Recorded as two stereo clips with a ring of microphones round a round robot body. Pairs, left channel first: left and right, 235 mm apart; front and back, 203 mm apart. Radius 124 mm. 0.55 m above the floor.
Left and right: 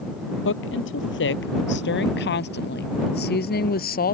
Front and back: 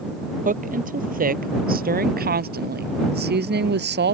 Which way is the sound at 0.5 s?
130° left.